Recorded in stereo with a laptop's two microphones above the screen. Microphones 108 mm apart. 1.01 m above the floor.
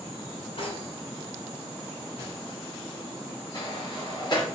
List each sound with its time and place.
0.6 s cutlery clinking: 65° left (ahead or behind), 1.9 m
3.5 s a sliding door: 45° left (ahead or behind), 3.5 m